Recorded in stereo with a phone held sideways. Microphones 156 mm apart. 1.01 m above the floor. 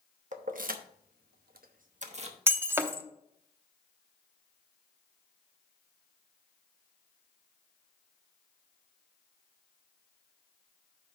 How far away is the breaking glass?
About 0.7 m.